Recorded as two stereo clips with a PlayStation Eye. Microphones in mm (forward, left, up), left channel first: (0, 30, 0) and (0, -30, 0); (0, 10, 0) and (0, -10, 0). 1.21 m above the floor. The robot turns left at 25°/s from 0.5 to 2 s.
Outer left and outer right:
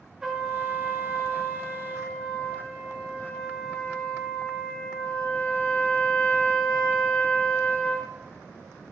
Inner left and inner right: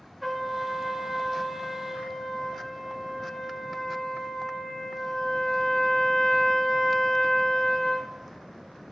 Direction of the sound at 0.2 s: 170° right.